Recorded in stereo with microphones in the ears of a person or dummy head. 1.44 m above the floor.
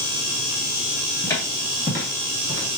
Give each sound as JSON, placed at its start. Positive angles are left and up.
{"t": 1.2, "sound": "footsteps", "side_deg": 15, "distance_m": 1.8}